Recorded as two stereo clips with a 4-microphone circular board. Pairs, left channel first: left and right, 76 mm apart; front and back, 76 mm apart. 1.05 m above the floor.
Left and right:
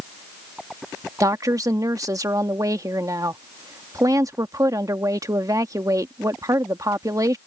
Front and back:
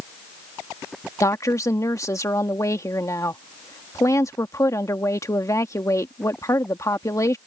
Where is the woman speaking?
50° right.